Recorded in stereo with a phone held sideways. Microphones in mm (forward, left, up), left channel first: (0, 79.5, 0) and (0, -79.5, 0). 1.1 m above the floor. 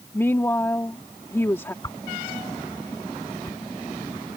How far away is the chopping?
I don't hear chopping.